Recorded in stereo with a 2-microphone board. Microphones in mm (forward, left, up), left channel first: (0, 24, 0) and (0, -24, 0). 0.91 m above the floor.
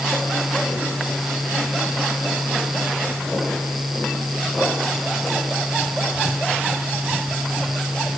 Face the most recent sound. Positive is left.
No sound to turn to.